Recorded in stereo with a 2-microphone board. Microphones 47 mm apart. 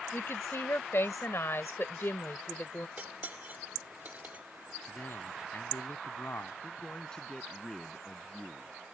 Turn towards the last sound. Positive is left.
turn(degrees=15)  # may be behind; listen again after turning